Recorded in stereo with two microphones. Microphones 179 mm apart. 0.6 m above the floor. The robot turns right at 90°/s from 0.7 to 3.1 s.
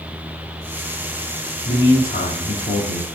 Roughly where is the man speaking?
Ahead.